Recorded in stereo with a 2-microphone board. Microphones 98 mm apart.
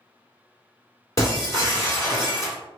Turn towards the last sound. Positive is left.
turn(degrees=35)  # may be behind; listen again after turning